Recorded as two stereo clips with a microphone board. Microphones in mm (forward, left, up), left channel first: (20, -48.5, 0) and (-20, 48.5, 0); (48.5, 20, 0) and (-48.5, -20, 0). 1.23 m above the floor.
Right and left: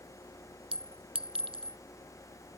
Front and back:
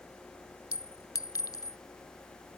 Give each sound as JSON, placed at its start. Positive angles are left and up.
{"t": 0.7, "sound": "a clink", "azimuth_deg": 80}